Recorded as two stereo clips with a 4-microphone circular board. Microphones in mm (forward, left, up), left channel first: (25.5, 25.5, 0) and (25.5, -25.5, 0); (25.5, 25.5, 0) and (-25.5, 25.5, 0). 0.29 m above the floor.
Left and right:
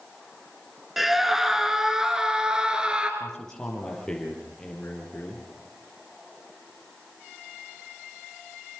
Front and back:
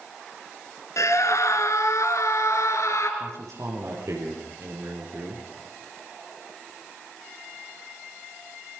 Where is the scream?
Straight ahead, 3.5 m; by 3.1 s 20° right, 4.5 m.